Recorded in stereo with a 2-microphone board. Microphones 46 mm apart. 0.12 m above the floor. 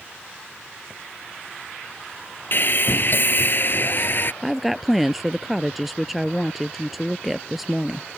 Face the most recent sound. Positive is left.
turn(degrees=0)  # may be behind; listen again after turning